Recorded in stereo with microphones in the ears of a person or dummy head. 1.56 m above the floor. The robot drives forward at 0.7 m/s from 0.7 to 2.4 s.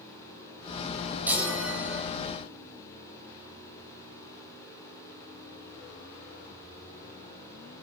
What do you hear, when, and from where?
1.3 s a chime: 10° right (ahead or behind), 2.5 m